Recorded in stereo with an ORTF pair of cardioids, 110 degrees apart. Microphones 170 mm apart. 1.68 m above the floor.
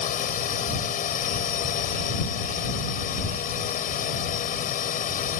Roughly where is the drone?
Ahead left.